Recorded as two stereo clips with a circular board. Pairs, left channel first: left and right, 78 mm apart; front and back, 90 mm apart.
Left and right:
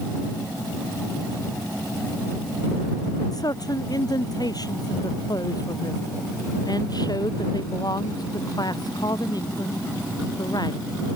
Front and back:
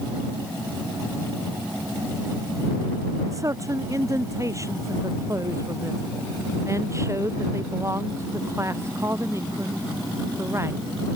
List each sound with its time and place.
3.3 s a man speaking: 125° left; by 10.8 s 120° left